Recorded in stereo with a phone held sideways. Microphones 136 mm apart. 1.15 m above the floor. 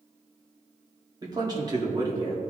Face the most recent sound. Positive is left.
turn(degrees=-30)  # may be behind; listen again after turning